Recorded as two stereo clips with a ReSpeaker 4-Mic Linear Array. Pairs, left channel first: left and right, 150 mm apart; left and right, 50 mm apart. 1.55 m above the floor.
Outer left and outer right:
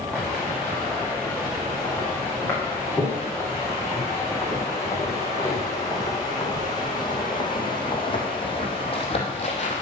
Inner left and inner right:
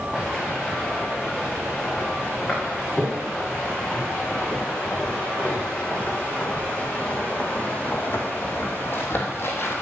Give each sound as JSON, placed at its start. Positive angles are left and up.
{"t": 0.1, "sound": "footsteps", "side_deg": 10, "distance_m": 8.5}